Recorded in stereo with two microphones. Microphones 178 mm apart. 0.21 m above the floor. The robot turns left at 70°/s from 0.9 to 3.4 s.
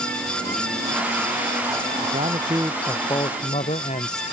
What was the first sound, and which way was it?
A man speaking, 125° right.